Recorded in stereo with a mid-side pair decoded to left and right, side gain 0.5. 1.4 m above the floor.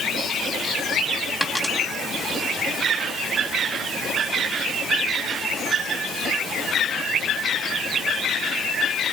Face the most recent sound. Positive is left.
turn(degrees=15)